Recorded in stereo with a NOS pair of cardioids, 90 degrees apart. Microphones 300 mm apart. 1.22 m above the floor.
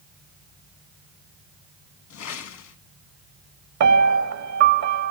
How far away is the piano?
About 0.9 m.